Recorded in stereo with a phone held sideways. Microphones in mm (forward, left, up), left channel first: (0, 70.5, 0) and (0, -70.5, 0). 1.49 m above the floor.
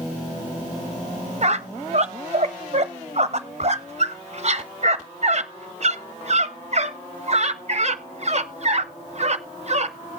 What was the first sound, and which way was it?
A squeak, 50° right (ahead or behind).